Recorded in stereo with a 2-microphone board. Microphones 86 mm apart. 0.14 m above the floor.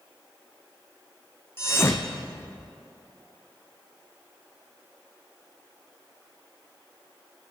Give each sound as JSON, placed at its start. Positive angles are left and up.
{"t": 1.6, "sound": "a thud", "side_deg": 30, "distance_m": 0.9}